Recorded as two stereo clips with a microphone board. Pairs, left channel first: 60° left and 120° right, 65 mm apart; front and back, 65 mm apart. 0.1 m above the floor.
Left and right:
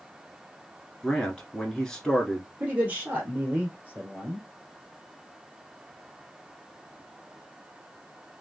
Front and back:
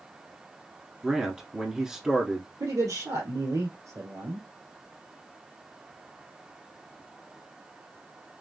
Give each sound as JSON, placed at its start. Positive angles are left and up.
{"t": 1.0, "sound": "a man speaking", "azimuth_deg": 115, "distance_m": 1.2}
{"t": 2.6, "sound": "a man speaking", "azimuth_deg": 180, "distance_m": 2.0}